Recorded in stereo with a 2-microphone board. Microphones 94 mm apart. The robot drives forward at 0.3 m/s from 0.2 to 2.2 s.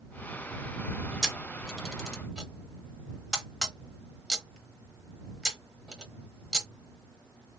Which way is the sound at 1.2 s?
Centre (ahead or behind).